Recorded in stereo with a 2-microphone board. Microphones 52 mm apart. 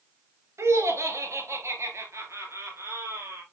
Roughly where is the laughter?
Right.